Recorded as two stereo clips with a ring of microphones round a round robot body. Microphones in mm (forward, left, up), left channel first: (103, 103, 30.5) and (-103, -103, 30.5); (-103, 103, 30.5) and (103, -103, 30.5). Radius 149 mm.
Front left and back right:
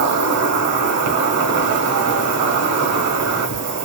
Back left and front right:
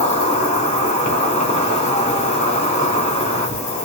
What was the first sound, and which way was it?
An insect, 160° right.